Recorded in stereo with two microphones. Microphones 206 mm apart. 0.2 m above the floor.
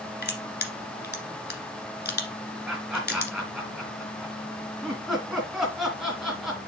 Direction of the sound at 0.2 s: 55° left (ahead or behind).